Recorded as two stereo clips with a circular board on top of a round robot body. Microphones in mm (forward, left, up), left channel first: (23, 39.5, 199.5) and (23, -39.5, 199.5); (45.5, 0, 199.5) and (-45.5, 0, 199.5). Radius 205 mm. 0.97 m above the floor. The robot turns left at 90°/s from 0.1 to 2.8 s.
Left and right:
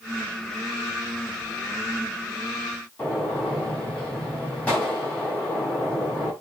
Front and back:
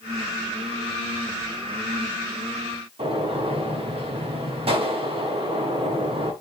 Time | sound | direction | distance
3.0 | a gunshot | 165° left | 5.5 m